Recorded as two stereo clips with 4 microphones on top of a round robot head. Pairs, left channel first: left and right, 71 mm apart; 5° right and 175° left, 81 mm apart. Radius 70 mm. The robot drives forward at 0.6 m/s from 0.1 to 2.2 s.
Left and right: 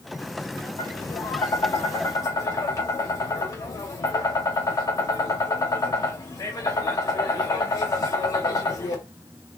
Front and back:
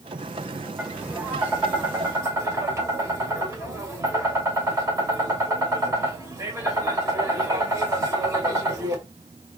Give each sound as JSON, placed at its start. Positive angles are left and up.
{"t": 0.8, "sound": "tapping", "azimuth_deg": 105, "distance_m": 2.0}